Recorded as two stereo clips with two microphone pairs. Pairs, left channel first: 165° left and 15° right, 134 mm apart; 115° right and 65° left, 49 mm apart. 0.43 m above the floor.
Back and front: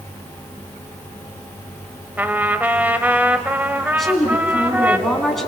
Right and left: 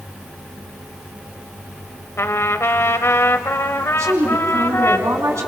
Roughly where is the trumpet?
Right.